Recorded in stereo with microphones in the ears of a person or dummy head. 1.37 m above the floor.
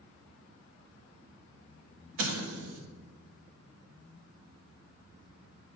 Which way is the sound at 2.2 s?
80° right.